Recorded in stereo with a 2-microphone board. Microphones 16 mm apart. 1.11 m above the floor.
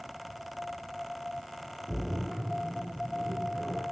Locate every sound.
1.9 s a splash: 10° left (ahead or behind), 4.5 m